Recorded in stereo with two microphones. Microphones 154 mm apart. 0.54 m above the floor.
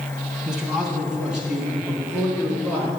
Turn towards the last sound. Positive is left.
turn(degrees=-10)  # may be behind; listen again after turning